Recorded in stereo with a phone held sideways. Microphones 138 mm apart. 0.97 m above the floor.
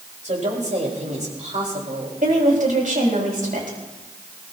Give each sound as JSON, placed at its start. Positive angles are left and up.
{"t": 0.2, "sound": "a woman speaking", "side_deg": -60, "distance_m": 4.5}
{"t": 2.2, "sound": "a woman speaking", "side_deg": -70, "distance_m": 5.5}